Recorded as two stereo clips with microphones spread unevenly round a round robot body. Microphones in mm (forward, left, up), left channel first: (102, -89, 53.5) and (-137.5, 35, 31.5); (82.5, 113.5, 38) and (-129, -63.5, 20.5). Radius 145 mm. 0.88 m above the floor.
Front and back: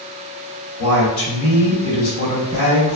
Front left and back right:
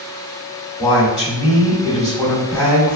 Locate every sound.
0.8 s a woman speaking: 40° right, 1.8 m